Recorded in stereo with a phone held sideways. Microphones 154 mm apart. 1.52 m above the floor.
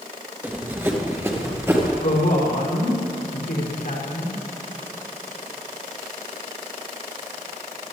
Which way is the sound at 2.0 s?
85° left.